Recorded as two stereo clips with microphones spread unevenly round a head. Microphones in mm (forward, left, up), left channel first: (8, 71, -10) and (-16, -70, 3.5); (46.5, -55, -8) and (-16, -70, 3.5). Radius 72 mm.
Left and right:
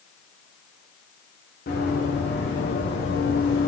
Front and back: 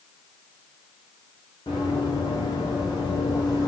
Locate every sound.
1.7 s running footsteps: 55° left, 6.5 m; by 3.7 s 75° left, 5 m